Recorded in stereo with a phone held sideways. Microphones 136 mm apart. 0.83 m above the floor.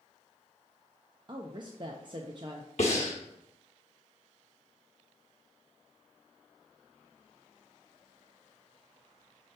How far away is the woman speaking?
About 0.5 m.